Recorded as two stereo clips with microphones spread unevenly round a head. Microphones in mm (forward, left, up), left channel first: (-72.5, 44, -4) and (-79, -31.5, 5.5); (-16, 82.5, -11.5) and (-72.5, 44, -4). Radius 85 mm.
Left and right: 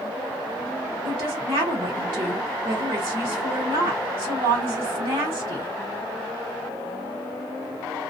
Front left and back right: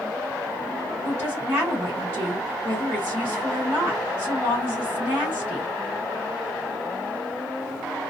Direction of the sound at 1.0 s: 75° right.